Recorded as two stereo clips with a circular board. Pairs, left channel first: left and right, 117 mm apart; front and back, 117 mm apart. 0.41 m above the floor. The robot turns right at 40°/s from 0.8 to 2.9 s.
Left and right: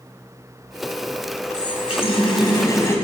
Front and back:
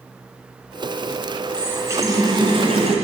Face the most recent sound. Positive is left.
turn(degrees=155)